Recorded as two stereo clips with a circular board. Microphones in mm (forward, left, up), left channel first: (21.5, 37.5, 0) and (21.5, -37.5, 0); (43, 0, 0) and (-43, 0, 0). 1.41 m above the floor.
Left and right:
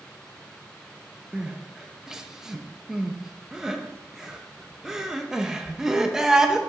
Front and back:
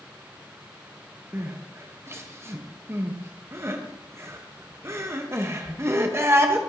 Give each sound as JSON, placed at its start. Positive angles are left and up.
{"t": 1.3, "sound": "crying", "azimuth_deg": -160, "distance_m": 0.7}